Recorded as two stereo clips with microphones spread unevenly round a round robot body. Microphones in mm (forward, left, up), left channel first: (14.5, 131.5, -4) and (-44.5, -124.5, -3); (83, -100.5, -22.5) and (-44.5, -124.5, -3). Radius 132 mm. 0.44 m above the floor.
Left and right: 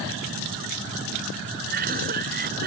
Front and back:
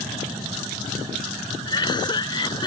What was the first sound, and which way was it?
A cough, 45° right.